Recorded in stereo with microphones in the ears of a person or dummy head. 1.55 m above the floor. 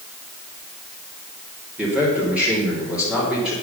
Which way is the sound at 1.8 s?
5° right (ahead or behind).